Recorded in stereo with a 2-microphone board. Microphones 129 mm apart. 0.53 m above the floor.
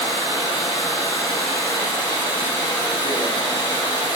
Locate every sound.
0.0 s running water: 35° left (ahead or behind), 4.5 m